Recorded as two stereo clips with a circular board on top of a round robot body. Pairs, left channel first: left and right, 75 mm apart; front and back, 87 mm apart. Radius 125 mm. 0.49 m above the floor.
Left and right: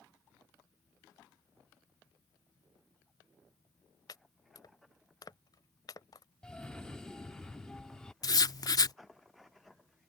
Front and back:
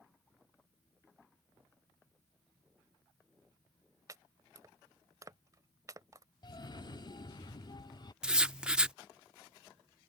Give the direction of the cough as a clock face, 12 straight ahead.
12 o'clock.